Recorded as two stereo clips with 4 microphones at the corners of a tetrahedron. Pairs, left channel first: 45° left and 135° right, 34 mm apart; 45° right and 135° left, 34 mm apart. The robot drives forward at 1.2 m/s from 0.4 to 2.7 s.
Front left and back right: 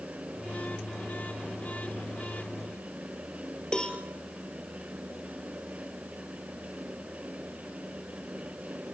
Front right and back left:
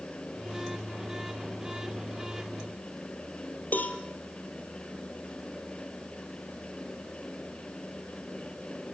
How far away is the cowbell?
About 1.9 m.